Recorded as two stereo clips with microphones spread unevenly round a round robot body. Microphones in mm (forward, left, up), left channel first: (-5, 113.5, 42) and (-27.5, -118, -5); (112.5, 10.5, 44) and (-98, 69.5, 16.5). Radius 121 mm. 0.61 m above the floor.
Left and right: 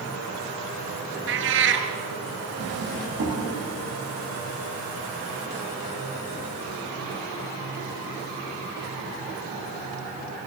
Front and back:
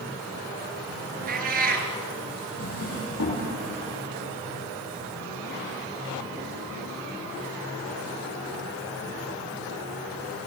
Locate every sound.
1.3 s a cat meowing: 140° right, 2.5 m
2.6 s a drawer: 50° right, 9 m